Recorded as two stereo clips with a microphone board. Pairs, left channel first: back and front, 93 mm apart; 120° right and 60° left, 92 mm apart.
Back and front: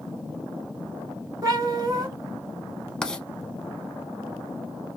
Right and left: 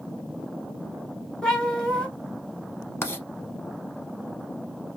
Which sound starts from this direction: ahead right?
A cat meowing, at 1.4 s.